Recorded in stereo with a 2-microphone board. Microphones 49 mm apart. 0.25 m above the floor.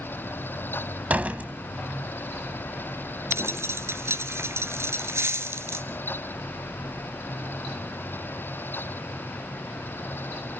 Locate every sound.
1.1 s a door slam: 30° right (ahead or behind), 1.1 m
3.3 s a dropped coin: 65° right (ahead or behind), 1.4 m